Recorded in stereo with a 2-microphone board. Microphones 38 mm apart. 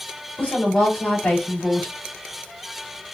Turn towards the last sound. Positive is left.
turn(degrees=45)  # may be behind; listen again after turning